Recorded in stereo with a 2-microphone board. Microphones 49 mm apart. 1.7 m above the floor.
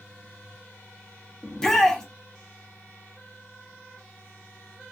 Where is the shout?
10° left (ahead or behind), 0.9 m.